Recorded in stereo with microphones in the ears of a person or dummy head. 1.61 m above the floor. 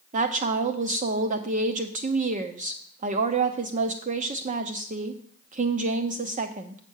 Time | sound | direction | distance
0.1 | a woman speaking | 35° right (ahead or behind) | 0.8 m